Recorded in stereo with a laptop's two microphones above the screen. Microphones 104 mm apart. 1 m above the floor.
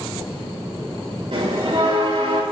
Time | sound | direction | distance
1.3 | a bell | 80° right | 3.5 m